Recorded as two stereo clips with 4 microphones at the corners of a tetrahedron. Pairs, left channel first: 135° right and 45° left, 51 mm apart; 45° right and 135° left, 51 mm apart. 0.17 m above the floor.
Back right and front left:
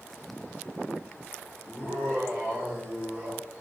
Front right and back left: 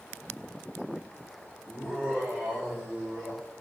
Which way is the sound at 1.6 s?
75° left.